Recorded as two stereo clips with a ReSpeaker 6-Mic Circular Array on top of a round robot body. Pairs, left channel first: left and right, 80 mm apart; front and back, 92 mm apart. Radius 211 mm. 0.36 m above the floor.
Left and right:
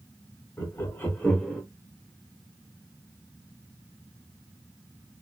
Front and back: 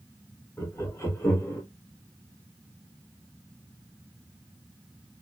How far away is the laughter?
About 1.9 m.